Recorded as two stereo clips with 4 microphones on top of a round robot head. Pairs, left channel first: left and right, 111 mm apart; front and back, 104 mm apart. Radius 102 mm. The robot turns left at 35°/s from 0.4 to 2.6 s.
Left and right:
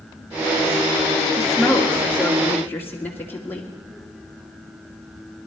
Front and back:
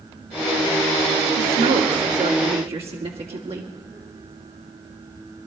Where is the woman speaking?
155° right, 2 m; by 3.7 s 160° left, 2 m.